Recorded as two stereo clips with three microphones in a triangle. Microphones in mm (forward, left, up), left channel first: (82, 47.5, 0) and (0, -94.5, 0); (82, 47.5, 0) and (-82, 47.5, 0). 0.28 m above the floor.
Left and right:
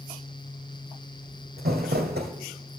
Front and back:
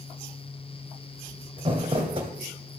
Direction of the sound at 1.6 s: 125° right.